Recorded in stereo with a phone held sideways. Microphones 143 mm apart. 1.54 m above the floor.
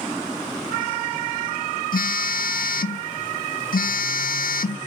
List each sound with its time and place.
1.9 s a phone buzzing: 80° left, 0.7 m